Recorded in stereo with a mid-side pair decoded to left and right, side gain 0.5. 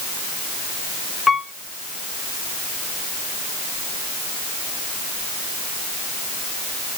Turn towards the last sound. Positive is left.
turn(degrees=25)